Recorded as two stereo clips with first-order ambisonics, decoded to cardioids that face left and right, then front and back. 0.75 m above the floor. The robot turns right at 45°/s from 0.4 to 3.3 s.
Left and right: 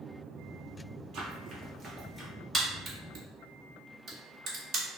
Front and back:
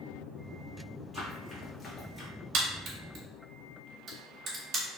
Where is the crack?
165° right, 1.2 m; by 4.8 s 135° right, 1.2 m.